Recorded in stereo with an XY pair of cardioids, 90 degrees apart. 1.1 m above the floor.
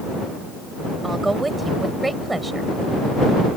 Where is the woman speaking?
20° right.